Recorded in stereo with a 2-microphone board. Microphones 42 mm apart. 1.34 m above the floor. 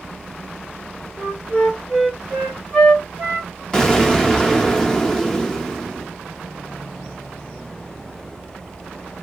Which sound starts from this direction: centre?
An explosion, at 3.7 s.